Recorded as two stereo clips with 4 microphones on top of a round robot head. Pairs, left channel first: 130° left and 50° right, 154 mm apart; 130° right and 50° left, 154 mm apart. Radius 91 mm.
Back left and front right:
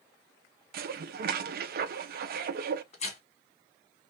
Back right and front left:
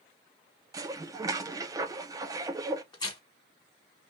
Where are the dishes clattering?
20° right, 0.6 m.